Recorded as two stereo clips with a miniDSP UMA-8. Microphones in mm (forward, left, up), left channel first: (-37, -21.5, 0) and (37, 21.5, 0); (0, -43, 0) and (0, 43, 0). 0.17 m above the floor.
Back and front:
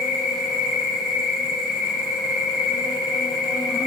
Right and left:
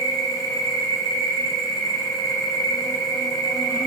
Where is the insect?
50° right, 1.0 m.